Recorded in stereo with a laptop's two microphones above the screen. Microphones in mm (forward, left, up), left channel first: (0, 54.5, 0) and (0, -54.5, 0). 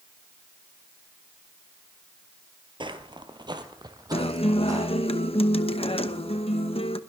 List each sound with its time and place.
2.8 s footsteps: 50° right (ahead or behind), 1.4 m; by 4.9 s 30° right (ahead or behind), 3 m
4.1 s a guitar: 65° left (ahead or behind), 0.9 m